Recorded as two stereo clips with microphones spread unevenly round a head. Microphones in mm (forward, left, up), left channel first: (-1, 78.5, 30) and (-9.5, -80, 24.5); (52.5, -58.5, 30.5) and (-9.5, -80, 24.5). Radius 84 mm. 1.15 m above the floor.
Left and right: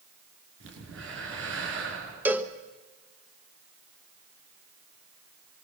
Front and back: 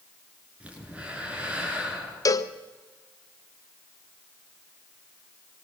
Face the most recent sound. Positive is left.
turn(degrees=-15)